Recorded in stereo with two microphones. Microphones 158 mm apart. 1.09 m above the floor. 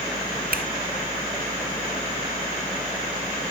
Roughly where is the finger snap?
Right.